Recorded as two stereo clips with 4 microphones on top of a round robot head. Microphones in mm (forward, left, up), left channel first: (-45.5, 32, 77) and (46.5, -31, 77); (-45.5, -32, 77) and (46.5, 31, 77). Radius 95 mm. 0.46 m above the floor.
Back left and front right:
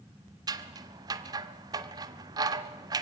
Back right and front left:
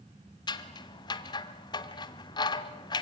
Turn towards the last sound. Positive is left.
turn(degrees=-90)